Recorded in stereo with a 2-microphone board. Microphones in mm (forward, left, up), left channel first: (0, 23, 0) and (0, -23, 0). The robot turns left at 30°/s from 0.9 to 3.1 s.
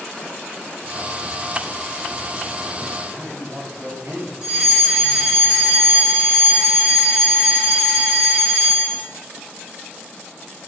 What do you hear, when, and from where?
3.1 s a man speaking: 75° right (ahead or behind), 2 m
4.4 s a fire alarm: 20° right (ahead or behind), 2.5 m